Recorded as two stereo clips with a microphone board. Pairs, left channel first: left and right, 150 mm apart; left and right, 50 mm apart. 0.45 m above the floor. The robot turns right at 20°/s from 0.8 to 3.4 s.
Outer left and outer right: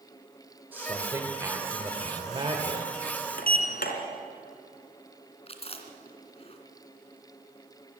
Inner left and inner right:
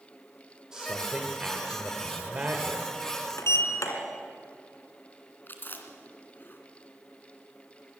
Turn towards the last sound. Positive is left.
turn(degrees=40)  # may be behind; listen again after turning